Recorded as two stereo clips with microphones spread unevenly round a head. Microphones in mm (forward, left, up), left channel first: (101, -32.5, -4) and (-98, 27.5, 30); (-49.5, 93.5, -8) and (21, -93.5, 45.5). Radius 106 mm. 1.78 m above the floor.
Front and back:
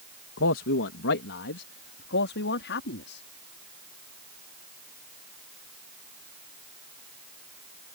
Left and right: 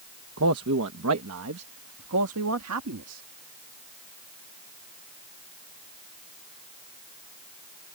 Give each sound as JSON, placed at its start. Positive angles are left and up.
{"t": 0.4, "sound": "a man speaking", "azimuth_deg": -50}